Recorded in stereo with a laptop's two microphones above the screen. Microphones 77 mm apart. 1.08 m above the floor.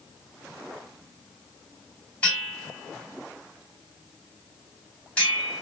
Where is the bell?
15° left (ahead or behind), 3 m.